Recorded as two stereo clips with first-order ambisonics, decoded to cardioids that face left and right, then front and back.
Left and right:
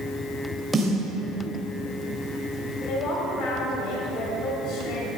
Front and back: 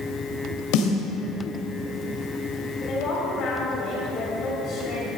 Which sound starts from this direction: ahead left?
A woman speaking, at 2.9 s.